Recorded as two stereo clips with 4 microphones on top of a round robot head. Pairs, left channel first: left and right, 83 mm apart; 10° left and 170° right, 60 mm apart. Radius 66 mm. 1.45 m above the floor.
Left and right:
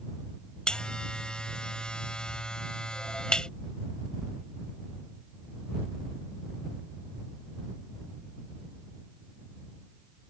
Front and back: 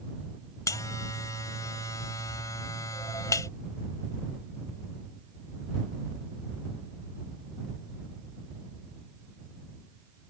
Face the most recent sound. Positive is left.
turn(degrees=10)